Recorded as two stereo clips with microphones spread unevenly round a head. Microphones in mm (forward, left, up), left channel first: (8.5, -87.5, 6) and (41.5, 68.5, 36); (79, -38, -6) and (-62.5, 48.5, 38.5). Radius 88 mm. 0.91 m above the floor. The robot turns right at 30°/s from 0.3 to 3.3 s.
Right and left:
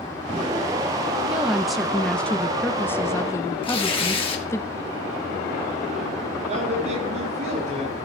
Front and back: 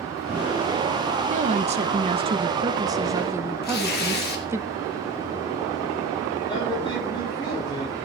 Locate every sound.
1.3 s a woman speaking: 175° left, 0.5 m; by 4.6 s 125° right, 0.5 m
3.6 s tearing paper: 50° right, 1.8 m
6.5 s a woman speaking: 30° left, 7 m